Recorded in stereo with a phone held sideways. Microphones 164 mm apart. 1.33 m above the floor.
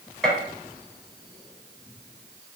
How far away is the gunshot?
About 1.0 m.